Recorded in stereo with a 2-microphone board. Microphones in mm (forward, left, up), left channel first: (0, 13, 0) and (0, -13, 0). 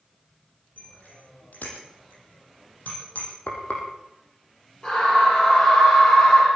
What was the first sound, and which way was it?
A bicycle bell, 85° left.